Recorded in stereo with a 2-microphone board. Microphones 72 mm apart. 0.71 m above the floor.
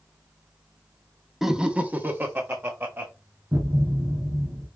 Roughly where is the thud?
Right.